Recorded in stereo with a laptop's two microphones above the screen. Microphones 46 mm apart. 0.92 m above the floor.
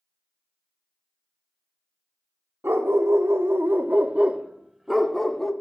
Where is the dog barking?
70° right (ahead or behind), 0.9 m; by 5.5 s 10° left (ahead or behind), 1.0 m.